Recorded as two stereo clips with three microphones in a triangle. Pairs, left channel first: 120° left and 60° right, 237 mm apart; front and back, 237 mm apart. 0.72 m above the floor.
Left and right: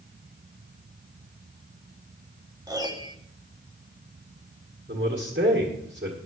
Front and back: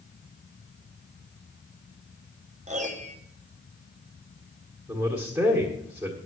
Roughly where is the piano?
Behind right.